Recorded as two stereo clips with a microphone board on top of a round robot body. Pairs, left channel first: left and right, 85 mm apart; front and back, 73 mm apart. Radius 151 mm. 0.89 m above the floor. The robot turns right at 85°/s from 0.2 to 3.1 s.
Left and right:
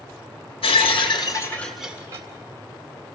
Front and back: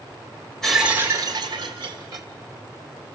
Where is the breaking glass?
80° left, 1.4 m; by 2.3 s 140° right, 1.4 m.